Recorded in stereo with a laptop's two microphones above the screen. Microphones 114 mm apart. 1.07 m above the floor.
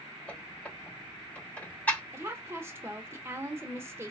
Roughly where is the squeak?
Centre.